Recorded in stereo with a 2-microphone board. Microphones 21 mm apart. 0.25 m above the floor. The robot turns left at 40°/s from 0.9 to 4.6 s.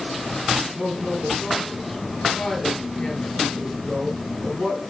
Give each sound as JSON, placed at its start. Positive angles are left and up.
{"t": 0.6, "sound": "a woman speaking", "side_deg": -40, "distance_m": 4.0}